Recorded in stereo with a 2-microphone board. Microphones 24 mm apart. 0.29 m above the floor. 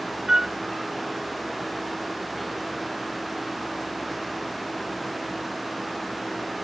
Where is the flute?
25° right (ahead or behind).